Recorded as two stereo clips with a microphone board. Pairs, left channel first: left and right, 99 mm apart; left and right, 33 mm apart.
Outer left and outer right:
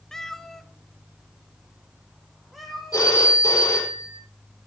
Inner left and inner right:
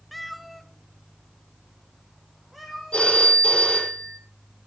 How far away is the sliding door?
I don't hear a sliding door.